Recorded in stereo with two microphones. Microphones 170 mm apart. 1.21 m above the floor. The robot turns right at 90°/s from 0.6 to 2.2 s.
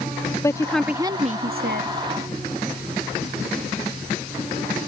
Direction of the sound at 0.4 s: 160° left.